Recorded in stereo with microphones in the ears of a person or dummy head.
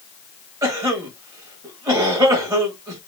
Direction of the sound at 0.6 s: 20° right (ahead or behind).